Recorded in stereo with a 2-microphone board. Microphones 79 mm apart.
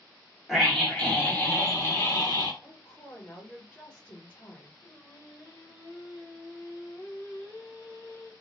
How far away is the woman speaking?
About 1.3 m.